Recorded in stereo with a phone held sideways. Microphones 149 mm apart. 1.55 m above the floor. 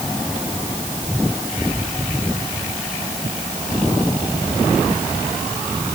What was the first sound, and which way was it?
Only background noise.